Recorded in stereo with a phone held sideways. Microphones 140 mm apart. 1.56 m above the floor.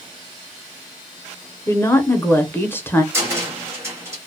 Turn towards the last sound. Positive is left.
turn(degrees=-20)  # may be behind; listen again after turning